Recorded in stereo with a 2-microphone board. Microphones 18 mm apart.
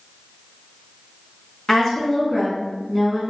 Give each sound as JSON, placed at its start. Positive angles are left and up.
{"t": 1.7, "sound": "a woman speaking", "side_deg": 25, "distance_m": 1.1}